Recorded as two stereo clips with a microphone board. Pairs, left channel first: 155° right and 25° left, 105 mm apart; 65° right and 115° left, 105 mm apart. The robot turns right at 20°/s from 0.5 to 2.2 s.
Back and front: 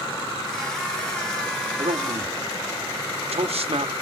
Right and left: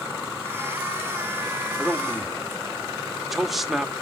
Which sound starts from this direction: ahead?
A man speaking, at 1.8 s.